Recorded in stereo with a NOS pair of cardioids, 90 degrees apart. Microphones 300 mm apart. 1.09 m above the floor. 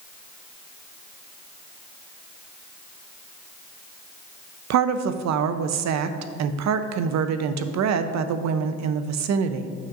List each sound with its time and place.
4.7 s a woman speaking: 65° right, 0.7 m